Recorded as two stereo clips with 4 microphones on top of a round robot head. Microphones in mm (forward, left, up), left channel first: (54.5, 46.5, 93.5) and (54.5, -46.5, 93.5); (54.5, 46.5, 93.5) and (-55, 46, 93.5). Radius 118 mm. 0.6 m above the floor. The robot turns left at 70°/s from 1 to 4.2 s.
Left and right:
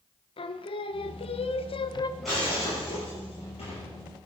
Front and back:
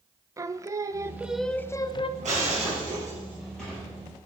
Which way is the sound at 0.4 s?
115° left.